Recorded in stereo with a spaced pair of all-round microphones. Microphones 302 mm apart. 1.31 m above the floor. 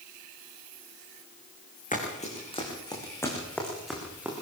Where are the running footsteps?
25° left (ahead or behind), 6.5 m; by 4.3 s 5° right (ahead or behind), 7 m.